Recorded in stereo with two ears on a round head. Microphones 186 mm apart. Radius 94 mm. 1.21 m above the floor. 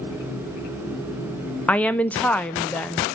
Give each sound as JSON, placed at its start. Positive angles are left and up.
{"t": 1.7, "sound": "a woman speaking", "side_deg": 5, "distance_m": 0.6}